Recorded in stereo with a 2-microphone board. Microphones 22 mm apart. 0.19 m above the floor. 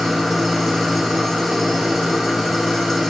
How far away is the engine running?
About 6.5 m.